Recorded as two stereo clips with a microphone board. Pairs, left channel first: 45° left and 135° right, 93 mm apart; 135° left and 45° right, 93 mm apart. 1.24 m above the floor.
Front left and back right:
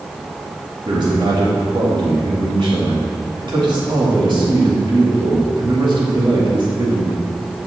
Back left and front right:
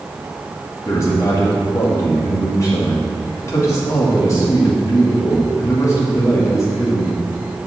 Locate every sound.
0.8 s a man speaking: 170° right, 2.0 m